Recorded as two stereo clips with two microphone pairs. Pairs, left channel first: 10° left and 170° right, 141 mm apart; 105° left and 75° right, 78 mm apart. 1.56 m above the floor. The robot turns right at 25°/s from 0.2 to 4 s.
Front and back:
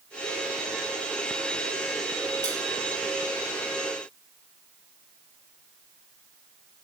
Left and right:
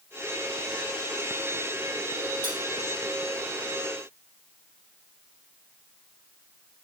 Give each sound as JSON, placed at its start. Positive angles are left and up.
{"t": 2.4, "sound": "cutlery clinking", "azimuth_deg": -65, "distance_m": 3.5}